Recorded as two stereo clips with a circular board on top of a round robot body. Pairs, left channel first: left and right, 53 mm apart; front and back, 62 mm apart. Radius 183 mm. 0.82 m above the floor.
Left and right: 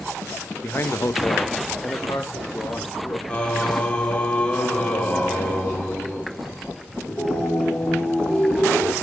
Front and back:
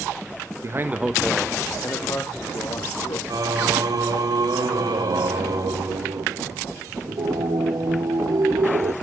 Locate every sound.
0.6 s a man speaking: 140° left, 1.2 m; by 3.2 s 30° left, 3.5 m
3.3 s singing: 160° left, 1.9 m